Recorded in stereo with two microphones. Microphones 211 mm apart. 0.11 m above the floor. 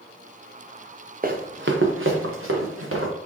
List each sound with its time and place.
1.2 s running footsteps: 40° right (ahead or behind), 0.8 m; by 3.1 s 85° right, 1.9 m